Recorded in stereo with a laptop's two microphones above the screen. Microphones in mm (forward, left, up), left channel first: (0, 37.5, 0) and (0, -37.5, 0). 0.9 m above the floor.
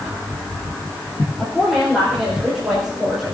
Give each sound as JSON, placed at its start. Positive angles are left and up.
{"t": 1.4, "sound": "a woman speaking", "side_deg": -10, "distance_m": 3.5}